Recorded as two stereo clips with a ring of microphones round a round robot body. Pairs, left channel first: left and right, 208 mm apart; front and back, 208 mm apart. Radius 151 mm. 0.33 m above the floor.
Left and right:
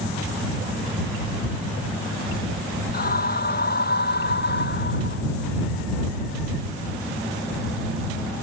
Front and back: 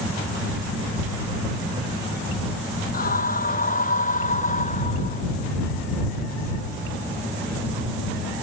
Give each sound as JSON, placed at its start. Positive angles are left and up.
{"t": 2.9, "sound": "a scream", "azimuth_deg": 45}